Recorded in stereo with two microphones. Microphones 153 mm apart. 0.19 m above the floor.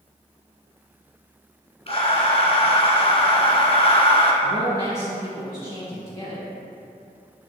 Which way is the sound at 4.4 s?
20° left (ahead or behind).